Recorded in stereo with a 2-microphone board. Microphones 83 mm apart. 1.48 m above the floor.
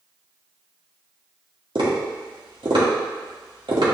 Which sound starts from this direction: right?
Tapping, at 1.8 s.